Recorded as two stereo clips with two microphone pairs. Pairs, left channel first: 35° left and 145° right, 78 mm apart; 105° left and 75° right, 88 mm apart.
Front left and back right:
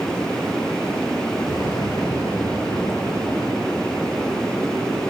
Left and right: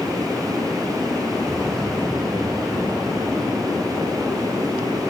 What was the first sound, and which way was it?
An explosion, 20° left.